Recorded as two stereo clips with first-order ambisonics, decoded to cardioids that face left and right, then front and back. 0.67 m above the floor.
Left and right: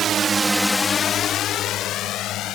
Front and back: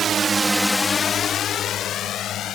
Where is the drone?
130° right; by 2.6 s 50° left.